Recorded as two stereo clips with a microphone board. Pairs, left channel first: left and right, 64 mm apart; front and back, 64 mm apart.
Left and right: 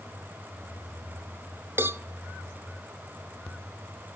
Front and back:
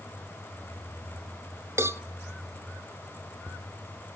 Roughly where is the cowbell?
Behind right.